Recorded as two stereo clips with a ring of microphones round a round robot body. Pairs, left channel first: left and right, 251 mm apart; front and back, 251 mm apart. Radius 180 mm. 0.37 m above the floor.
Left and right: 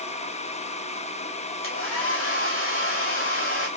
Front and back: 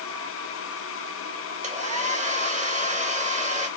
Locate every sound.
1.6 s a hair dryer: 125° left, 2.0 m